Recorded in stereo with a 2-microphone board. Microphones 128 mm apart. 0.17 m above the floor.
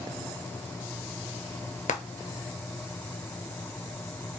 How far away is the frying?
About 0.6 m.